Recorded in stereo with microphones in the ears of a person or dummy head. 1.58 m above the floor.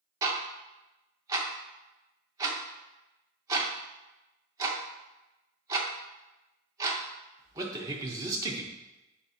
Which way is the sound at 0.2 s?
20° right (ahead or behind).